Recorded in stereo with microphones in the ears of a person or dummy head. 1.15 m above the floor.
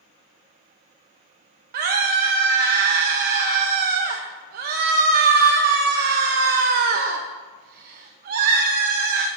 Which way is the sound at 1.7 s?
60° right (ahead or behind).